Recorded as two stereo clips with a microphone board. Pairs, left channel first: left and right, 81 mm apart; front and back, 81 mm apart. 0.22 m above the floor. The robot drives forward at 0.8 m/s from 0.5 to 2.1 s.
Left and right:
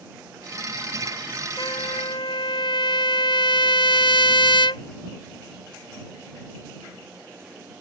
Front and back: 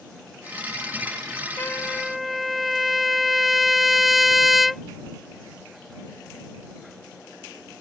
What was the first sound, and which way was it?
A trumpet, 60° left.